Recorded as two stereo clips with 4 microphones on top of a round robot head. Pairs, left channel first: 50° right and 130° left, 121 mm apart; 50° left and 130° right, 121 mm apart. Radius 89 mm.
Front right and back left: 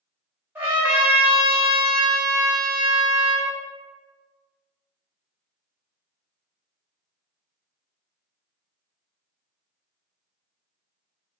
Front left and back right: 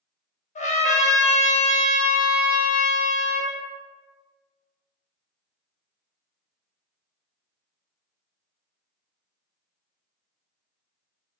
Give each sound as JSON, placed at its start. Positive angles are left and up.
{"t": 0.6, "sound": "a trumpet", "azimuth_deg": 55, "distance_m": 1.2}